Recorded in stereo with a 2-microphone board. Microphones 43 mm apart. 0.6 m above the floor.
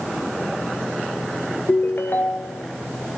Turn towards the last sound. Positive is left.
turn(degrees=50)  # may be behind; listen again after turning